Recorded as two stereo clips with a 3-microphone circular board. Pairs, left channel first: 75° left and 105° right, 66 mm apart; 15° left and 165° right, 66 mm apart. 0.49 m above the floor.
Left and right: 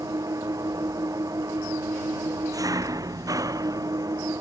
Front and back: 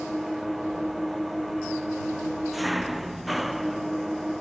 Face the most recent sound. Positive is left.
turn(degrees=-75)